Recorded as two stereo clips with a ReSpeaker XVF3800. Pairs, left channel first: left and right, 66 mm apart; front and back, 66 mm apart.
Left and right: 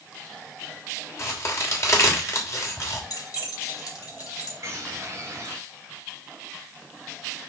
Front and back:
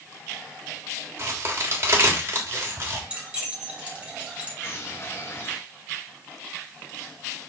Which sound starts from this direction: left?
Keys jangling, at 3.1 s.